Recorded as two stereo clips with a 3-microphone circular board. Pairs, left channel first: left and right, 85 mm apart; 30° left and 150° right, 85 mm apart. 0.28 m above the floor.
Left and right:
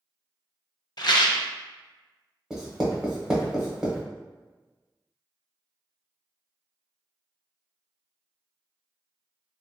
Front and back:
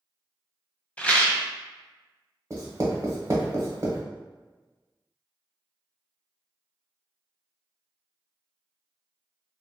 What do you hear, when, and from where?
1.0 s a rattle: 100° left, 0.5 m
2.5 s writing: 165° right, 0.8 m